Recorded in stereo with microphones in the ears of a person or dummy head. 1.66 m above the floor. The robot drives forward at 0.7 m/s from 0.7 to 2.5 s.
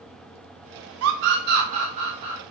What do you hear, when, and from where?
1.0 s a scream: 80° right, 0.6 m; by 2.4 s 30° right (ahead or behind), 1.2 m